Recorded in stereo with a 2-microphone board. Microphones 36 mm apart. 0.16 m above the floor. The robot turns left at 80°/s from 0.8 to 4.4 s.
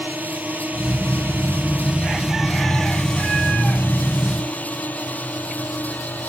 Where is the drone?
60° right (ahead or behind); by 6.3 s 55° left (ahead or behind).